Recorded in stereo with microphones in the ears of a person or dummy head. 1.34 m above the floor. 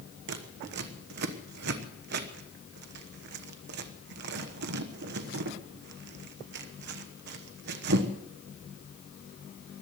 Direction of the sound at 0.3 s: 55° right (ahead or behind).